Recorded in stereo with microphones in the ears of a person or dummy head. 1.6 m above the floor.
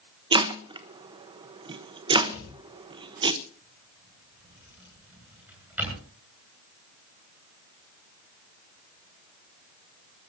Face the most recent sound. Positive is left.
turn(degrees=-5)  # may be behind; listen again after turning